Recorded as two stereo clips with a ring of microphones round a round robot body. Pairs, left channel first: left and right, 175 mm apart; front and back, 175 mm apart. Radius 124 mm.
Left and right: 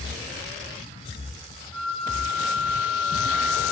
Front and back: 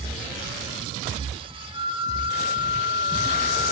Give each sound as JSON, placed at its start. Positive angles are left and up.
{"t": 1.7, "sound": "a flute", "azimuth_deg": -55, "distance_m": 2.0}